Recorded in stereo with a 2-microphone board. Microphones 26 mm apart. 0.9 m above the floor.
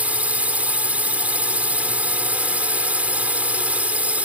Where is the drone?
65° right (ahead or behind).